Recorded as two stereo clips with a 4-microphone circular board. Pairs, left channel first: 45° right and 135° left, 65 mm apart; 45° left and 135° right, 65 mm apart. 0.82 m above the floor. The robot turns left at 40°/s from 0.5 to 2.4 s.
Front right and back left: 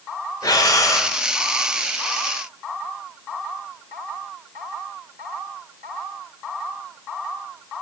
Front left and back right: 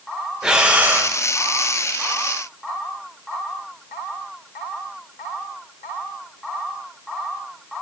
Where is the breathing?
55° right, 0.8 m; by 1.1 s 80° right, 0.8 m.